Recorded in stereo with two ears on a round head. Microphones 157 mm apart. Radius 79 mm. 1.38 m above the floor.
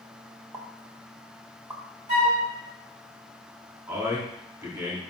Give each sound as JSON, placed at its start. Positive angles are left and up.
{"t": 0.5, "sound": "a pop", "side_deg": -15, "distance_m": 1.6}
{"t": 2.1, "sound": "a flute", "side_deg": -45, "distance_m": 4.0}
{"t": 3.9, "sound": "a man speaking", "side_deg": -20, "distance_m": 3.5}